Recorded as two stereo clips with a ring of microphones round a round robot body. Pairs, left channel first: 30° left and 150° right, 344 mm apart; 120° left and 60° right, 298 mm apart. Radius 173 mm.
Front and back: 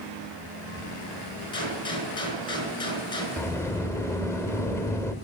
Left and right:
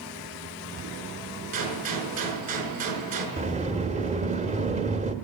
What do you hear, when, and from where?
1.5 s a gunshot: 50° right, 5 m
3.4 s a sliding door: 40° right, 1.2 m